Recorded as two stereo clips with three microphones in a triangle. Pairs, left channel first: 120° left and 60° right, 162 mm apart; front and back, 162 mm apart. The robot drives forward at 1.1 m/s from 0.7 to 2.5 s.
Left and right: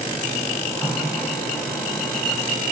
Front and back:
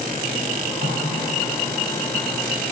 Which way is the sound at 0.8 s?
160° right.